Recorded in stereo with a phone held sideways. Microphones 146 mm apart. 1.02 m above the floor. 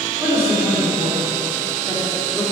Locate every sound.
0.2 s a man speaking: 20° right (ahead or behind), 2.5 m